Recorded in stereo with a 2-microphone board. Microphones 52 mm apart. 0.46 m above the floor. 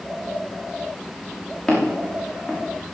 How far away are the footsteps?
About 5 m.